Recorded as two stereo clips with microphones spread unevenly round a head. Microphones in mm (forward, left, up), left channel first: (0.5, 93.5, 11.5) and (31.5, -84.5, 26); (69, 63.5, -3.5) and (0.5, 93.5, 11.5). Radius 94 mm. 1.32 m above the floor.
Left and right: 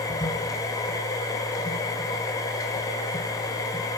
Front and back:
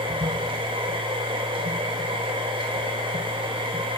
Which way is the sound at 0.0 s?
175° left.